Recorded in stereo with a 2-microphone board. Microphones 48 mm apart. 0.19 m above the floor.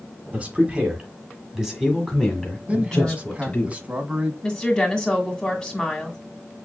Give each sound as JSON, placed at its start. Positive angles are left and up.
{"t": 0.3, "sound": "a man speaking", "side_deg": -30, "distance_m": 1.7}
{"t": 2.7, "sound": "a man speaking", "side_deg": -25, "distance_m": 1.2}
{"t": 4.4, "sound": "a woman speaking", "side_deg": 15, "distance_m": 1.8}